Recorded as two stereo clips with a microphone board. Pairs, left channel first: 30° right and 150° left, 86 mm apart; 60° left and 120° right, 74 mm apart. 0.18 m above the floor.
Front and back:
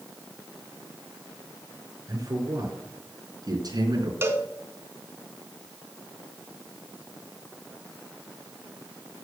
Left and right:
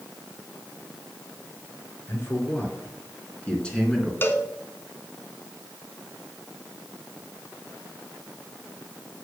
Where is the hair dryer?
No hair dryer in this recording.